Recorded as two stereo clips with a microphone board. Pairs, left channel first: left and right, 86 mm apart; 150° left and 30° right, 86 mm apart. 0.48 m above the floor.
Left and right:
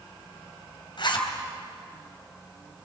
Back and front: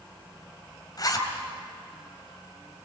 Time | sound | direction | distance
1.0 | a zipper | 110° left | 3 m